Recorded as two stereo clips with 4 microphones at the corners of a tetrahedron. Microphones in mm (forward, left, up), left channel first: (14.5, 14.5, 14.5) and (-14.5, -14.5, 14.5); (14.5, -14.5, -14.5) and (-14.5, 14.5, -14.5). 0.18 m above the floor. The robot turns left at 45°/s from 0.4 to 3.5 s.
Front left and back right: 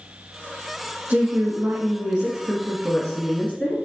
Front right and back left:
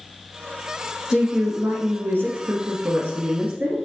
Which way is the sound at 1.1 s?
155° right.